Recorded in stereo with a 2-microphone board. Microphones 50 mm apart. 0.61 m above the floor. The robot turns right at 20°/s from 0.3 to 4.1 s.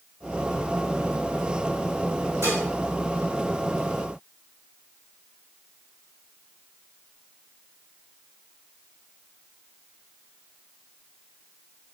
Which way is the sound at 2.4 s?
85° right.